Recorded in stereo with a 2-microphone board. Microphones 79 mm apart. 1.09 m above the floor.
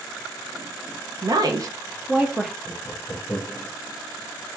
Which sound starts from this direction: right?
A woman speaking, at 1.2 s.